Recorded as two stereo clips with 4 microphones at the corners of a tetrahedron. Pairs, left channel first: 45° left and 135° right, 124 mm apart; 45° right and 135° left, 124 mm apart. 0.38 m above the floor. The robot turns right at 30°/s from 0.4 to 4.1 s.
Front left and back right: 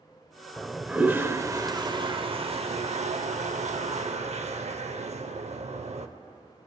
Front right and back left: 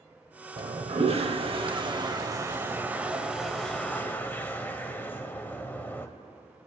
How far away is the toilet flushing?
About 0.6 m.